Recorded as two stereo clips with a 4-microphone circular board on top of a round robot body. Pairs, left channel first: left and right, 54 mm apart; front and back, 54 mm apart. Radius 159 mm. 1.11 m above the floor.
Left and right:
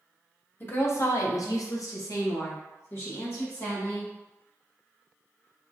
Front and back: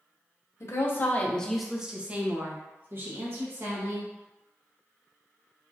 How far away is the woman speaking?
About 0.7 m.